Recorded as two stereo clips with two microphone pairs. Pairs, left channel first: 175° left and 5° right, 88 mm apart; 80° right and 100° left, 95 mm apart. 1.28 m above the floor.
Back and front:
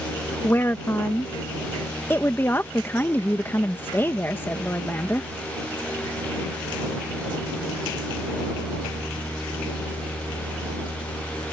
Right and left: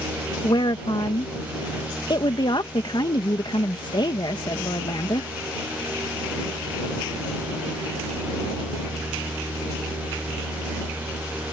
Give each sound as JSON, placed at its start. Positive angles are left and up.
{"t": 0.4, "sound": "a woman speaking", "azimuth_deg": -120}